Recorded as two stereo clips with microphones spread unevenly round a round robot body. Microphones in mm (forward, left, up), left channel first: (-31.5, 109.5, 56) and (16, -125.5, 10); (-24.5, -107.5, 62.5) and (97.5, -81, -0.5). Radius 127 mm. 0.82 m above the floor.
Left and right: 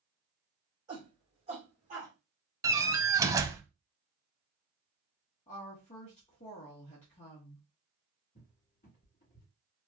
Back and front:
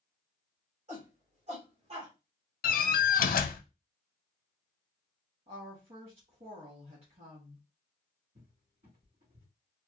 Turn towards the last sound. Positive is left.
turn(degrees=40)